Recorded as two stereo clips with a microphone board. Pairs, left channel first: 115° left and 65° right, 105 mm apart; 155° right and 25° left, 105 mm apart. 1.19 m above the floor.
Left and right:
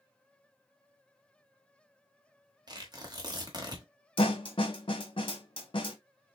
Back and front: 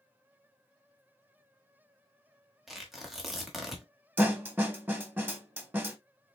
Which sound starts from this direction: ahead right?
Tearing paper, at 2.7 s.